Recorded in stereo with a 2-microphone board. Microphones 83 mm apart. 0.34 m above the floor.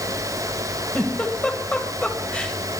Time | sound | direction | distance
0.9 | a giggle | 15° left (ahead or behind) | 2.0 m